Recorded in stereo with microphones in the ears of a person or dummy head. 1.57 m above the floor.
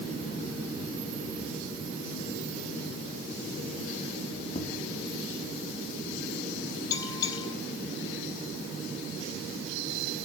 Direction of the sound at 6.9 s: 30° left (ahead or behind).